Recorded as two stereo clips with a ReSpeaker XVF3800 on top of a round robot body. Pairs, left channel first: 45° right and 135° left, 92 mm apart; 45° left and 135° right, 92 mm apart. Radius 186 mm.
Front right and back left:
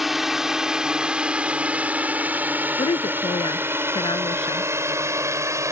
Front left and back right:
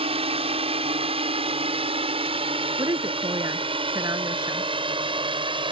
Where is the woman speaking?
85° right.